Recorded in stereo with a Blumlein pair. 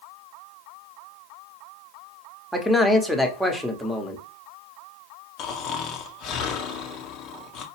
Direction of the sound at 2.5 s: Straight ahead.